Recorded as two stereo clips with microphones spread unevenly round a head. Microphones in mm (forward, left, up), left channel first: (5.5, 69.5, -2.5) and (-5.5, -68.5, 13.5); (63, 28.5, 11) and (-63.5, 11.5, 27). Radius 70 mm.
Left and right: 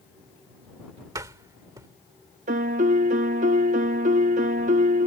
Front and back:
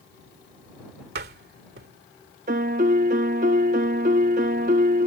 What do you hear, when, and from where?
1.1 s a door slam: 160° right
2.5 s a piano: 135° right